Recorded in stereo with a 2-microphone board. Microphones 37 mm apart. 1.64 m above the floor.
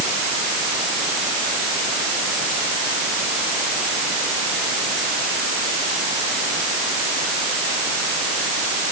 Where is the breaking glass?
I don't hear breaking glass.